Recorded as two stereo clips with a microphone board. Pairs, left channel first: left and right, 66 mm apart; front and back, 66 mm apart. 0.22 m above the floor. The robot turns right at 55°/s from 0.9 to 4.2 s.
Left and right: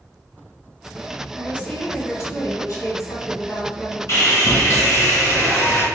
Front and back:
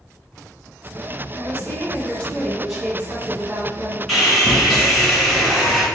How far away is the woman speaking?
About 1.5 m.